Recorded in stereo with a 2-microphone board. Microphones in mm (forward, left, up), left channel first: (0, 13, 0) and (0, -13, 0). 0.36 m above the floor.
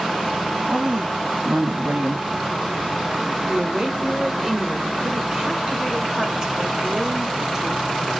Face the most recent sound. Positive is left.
turn(degrees=-25)  # may be behind; listen again after turning